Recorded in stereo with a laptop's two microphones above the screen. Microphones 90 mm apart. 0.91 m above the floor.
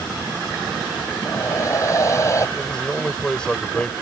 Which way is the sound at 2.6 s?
10° left (ahead or behind).